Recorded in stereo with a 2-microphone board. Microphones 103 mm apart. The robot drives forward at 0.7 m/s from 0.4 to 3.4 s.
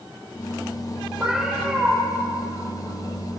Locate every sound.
1.2 s a cat meowing: 5° right (ahead or behind), 6.5 m